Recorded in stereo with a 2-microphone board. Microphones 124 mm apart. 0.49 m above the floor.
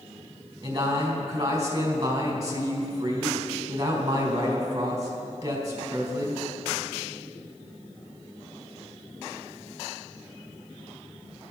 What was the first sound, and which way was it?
A man speaking, 30° right (ahead or behind).